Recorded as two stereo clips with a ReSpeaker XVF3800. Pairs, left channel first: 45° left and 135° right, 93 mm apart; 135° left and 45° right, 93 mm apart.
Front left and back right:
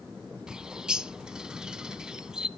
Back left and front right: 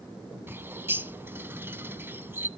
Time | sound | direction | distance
0.5 | a bird | 65° right | 0.5 m